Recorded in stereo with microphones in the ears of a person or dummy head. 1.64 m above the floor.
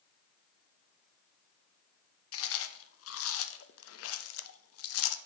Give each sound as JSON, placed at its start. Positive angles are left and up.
{"t": 2.3, "sound": "chewing", "side_deg": 75, "distance_m": 0.7}